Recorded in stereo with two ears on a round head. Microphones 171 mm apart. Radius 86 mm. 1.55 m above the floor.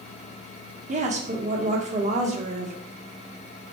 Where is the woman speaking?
40° right (ahead or behind), 1.6 m.